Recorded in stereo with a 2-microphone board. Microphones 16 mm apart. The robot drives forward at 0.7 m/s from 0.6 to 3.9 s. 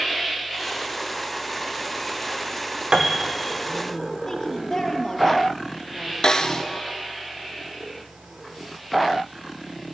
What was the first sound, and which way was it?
A piano, 50° right (ahead or behind).